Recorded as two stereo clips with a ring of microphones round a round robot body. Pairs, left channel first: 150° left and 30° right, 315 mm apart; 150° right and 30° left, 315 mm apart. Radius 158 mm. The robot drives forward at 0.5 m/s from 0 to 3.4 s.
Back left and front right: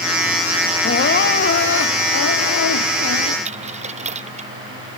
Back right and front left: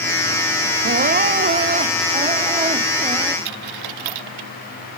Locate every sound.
0.8 s crying: 90° left; by 3.4 s 105° left
3.5 s a dropped coin: 40° left